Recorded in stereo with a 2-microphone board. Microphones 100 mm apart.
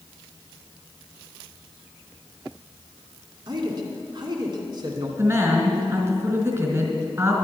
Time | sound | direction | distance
3.5 | a man speaking | 50° right (ahead or behind) | 2 m
5.2 | a woman speaking | 25° right (ahead or behind) | 2 m